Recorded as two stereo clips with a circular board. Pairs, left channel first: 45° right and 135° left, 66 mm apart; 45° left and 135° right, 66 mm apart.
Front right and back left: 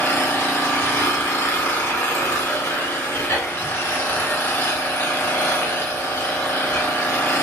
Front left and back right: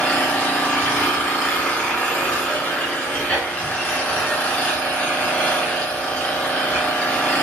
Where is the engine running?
10° right, 1.2 m.